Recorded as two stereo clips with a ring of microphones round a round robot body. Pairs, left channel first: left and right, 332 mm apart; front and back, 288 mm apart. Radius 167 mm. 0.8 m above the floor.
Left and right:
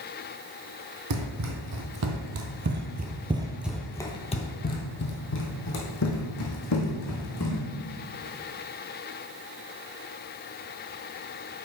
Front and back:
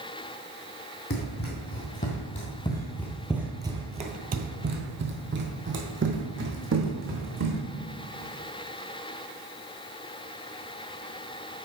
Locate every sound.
1.1 s running footsteps: 55° right, 1.6 m; by 7.6 s 135° left, 2.5 m